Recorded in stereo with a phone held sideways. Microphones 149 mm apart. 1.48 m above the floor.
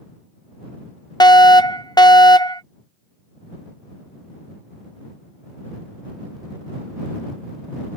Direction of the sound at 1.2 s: 30° left (ahead or behind).